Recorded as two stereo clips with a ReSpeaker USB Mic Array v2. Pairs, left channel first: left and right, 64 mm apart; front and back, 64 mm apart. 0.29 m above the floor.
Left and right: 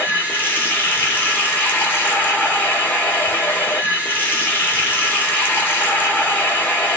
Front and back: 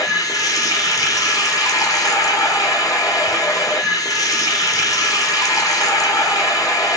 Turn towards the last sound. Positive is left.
turn(degrees=30)